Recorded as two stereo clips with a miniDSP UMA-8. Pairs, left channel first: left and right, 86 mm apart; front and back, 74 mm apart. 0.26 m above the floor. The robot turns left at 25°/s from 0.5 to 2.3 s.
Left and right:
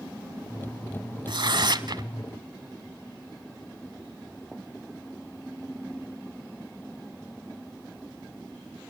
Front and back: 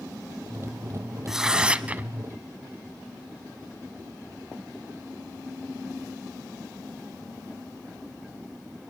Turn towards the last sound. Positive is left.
turn(degrees=-120)